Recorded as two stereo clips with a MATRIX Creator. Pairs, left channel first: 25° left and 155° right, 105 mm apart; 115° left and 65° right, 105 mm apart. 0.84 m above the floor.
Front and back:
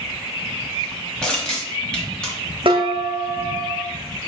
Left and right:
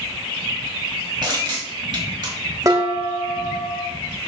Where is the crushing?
55° right, 1.3 m.